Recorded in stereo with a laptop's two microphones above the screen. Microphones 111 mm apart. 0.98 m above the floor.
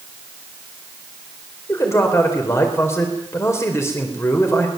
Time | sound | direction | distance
1.7 | a man speaking | 25° left (ahead or behind) | 4.5 m